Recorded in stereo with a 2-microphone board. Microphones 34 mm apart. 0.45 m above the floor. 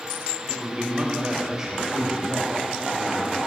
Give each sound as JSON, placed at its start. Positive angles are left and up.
{"t": 0.5, "sound": "a man speaking", "side_deg": -35, "distance_m": 2.0}